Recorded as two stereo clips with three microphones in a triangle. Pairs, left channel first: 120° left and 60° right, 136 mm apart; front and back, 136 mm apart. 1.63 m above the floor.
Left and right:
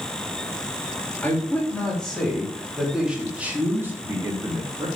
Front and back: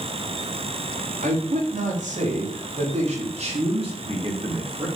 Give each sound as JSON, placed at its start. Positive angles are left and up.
{"t": 1.2, "sound": "a man speaking", "azimuth_deg": -160, "distance_m": 4.0}